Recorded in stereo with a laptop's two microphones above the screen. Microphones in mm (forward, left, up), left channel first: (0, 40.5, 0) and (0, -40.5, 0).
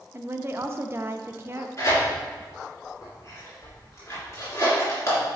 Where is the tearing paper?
35° left (ahead or behind), 2.5 m.